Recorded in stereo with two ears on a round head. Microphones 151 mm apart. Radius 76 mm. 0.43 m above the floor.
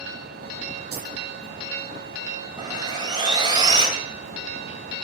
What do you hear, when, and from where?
0.9 s keys jangling: 65° right (ahead or behind), 5 m
2.6 s sawing: 25° right (ahead or behind), 2.5 m